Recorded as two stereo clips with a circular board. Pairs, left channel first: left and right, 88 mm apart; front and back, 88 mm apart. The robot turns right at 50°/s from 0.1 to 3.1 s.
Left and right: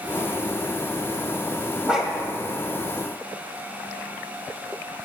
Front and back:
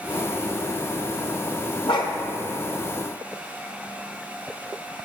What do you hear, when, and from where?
1.9 s a dog barking: 10° right, 1.5 m; by 2.1 s 5° left, 1.5 m